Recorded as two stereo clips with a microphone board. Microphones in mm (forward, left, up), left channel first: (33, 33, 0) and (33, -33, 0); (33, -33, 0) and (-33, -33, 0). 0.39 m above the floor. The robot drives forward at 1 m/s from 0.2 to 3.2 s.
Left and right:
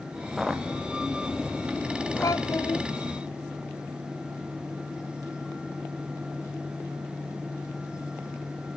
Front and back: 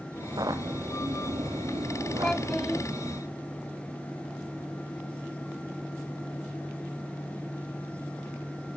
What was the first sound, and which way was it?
Footsteps, 175° right.